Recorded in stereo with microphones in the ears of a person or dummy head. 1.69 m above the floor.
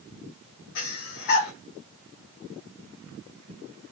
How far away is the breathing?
About 0.8 m.